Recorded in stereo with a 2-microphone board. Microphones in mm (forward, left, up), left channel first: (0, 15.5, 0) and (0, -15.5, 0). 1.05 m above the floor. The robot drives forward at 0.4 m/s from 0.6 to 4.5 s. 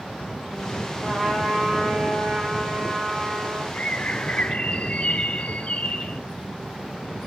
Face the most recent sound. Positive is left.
turn(degrees=45)  # may be behind; listen again after turning